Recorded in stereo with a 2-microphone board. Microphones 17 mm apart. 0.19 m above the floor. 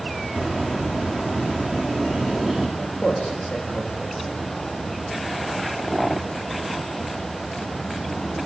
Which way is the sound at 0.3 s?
25° left (ahead or behind).